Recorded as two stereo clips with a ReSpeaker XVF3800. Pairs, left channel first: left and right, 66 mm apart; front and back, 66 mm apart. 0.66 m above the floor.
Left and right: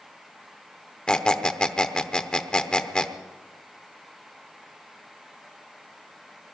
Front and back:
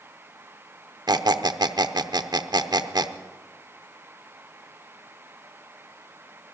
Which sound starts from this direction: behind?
A squeak, at 1.1 s.